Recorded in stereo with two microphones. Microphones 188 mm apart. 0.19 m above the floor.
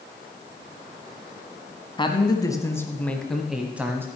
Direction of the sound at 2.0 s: 25° left (ahead or behind).